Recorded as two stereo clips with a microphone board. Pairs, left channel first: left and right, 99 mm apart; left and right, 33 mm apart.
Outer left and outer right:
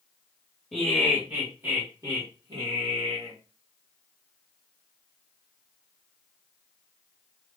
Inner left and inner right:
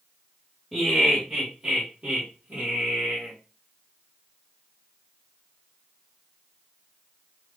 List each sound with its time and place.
0.7 s laughter: centre (ahead or behind), 1.6 m; by 3.3 s 65° right (ahead or behind), 1.5 m